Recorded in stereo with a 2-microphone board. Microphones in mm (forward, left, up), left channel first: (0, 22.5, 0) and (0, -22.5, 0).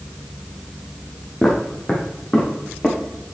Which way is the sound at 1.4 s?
10° left (ahead or behind).